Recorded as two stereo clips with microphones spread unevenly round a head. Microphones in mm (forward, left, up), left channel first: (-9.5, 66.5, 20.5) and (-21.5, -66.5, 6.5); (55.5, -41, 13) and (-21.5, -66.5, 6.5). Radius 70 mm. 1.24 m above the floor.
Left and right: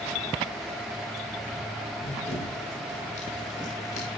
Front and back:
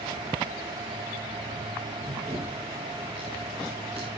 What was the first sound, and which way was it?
Running footsteps, 125° left.